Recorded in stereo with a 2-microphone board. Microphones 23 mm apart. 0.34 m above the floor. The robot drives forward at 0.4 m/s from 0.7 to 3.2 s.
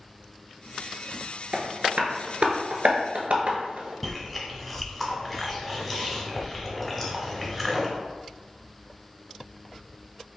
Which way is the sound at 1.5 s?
70° right (ahead or behind).